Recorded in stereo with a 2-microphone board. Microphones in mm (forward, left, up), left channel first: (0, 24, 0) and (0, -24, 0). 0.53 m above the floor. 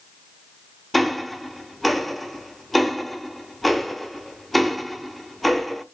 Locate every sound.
0.9 s ticking: 5° left (ahead or behind), 0.7 m